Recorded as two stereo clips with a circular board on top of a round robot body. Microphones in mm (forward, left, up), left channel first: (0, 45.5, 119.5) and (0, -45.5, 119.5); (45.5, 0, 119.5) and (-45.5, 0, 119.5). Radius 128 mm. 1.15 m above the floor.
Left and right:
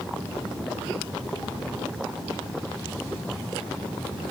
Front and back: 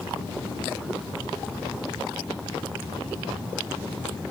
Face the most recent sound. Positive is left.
No sound to turn to.